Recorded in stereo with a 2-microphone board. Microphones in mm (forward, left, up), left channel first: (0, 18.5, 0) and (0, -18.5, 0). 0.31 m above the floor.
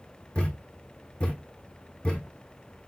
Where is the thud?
25° left (ahead or behind), 1.6 m.